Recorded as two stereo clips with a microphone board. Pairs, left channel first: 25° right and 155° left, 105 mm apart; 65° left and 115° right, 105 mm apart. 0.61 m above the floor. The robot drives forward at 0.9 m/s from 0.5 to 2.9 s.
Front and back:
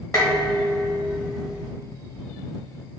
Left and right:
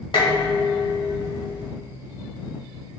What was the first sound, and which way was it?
Dishes clattering, 35° left.